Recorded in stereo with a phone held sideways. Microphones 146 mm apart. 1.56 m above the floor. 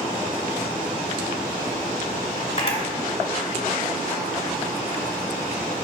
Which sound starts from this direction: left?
A camera shutter, at 2.6 s.